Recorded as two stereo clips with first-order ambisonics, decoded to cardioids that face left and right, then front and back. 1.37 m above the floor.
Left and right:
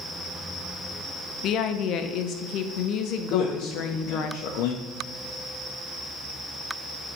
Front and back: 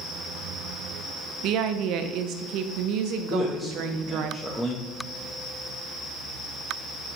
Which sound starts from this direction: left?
A man speaking, at 3.3 s.